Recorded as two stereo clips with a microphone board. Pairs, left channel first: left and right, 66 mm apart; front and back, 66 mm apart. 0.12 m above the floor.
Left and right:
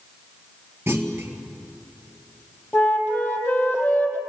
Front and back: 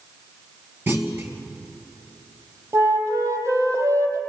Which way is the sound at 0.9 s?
135° right.